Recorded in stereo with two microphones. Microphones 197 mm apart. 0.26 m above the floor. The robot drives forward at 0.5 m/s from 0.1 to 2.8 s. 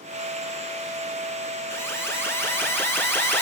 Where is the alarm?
15° left (ahead or behind), 3.5 m; by 3.4 s 10° left (ahead or behind), 4 m.